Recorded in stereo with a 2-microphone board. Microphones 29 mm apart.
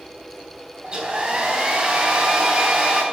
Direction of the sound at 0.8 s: 30° right (ahead or behind).